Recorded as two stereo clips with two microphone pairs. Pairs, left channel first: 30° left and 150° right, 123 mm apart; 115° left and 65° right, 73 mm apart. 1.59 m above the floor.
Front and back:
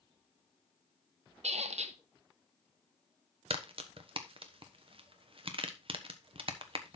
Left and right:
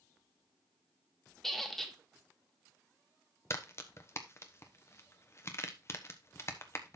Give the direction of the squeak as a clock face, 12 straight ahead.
5 o'clock.